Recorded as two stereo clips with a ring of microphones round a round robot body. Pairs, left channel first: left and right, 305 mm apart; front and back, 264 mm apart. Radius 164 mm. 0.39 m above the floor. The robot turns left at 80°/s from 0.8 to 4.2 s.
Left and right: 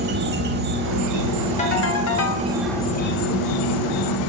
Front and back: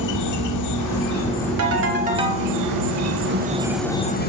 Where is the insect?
30° right, 0.7 m; by 4.3 s 55° left, 0.7 m.